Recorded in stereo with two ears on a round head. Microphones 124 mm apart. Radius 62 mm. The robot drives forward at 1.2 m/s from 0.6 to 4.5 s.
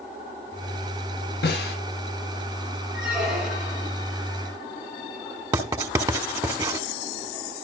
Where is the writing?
25° right (ahead or behind), 1.7 m.